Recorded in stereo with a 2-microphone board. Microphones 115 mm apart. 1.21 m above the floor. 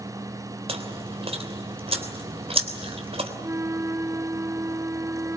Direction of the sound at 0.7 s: 65° right (ahead or behind).